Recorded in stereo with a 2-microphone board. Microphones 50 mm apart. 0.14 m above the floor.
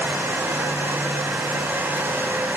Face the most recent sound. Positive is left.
No sound to turn to.